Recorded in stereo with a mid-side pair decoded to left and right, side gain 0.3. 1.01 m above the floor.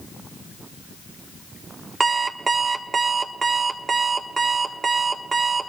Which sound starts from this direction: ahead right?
An alarm clock, at 2.0 s.